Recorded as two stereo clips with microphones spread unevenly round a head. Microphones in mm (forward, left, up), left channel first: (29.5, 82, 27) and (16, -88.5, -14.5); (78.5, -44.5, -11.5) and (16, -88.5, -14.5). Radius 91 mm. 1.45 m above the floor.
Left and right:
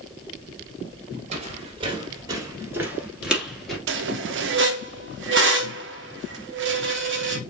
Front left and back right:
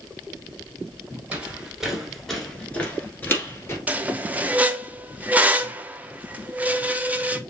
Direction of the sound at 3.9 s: 75° right.